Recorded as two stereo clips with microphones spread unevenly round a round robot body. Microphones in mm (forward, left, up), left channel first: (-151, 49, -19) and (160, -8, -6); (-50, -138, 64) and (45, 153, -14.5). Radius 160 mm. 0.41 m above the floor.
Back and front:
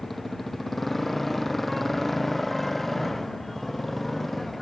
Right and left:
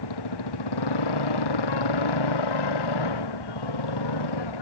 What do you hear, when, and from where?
0.0 s a motorcycle: 100° right